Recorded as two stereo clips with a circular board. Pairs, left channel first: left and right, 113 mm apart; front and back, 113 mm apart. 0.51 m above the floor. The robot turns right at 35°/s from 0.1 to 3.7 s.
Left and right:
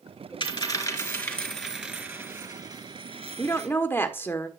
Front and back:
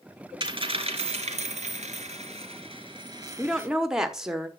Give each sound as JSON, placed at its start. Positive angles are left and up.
{"t": 0.4, "sound": "a dropped coin", "azimuth_deg": 140, "distance_m": 2.5}
{"t": 3.4, "sound": "a woman speaking", "azimuth_deg": 90, "distance_m": 1.1}